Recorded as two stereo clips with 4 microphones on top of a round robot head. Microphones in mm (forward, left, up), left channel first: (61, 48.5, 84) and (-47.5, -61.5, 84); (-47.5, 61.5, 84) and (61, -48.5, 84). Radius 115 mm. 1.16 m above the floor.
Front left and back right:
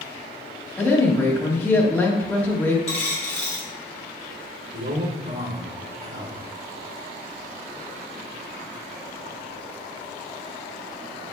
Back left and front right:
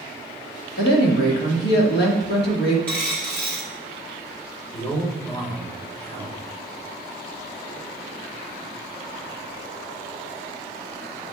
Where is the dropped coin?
55° left, 0.7 m.